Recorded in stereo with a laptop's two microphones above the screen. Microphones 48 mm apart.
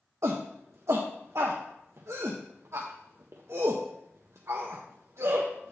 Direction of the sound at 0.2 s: 75° right (ahead or behind).